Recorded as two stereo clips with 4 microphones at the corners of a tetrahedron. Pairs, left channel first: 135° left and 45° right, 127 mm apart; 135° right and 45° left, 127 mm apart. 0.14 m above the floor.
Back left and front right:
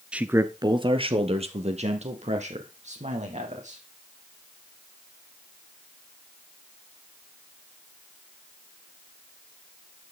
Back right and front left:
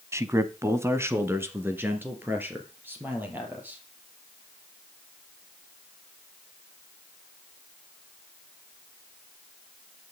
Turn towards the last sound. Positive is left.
turn(degrees=-30)